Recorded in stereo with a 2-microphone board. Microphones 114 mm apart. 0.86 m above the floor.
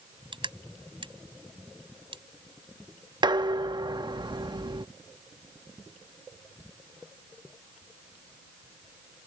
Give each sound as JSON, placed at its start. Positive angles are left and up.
{"t": 0.3, "sound": "crushing", "side_deg": -45}
{"t": 3.2, "sound": "dishes clattering", "side_deg": -40}